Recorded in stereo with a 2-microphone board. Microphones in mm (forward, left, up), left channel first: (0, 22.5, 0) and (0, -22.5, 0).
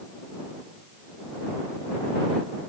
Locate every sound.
Only background noise.